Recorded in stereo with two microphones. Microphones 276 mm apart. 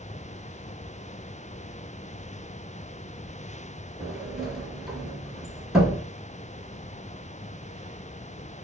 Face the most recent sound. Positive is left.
turn(degrees=0)  # may be behind; listen again after turning